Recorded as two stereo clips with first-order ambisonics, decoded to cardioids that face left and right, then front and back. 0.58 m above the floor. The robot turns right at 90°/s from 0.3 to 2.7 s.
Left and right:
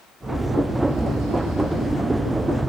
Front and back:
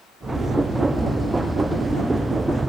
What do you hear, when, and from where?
Only background noise.